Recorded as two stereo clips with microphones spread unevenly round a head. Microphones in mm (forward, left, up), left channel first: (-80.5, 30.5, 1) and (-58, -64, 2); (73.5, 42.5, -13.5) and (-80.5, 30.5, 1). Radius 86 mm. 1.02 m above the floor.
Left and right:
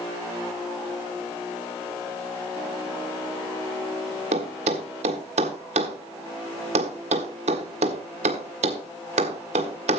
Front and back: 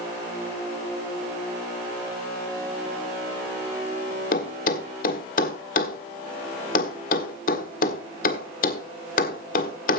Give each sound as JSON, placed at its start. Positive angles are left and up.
{"t": 4.3, "sound": "a thud", "azimuth_deg": -40, "distance_m": 1.5}